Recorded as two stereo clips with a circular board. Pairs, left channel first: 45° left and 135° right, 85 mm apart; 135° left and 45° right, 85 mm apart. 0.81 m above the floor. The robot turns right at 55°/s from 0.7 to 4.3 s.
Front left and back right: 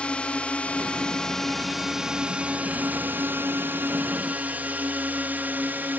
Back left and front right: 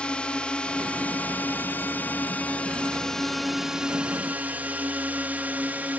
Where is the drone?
90° left; by 6.0 s 95° right.